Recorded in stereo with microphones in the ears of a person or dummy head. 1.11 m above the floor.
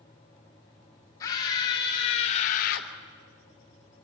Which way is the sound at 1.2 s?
20° left (ahead or behind).